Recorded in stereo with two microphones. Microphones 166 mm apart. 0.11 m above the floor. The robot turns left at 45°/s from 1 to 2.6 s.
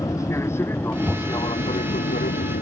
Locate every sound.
0.0 s an aircraft: 20° left (ahead or behind); by 2.6 s 65° left (ahead or behind)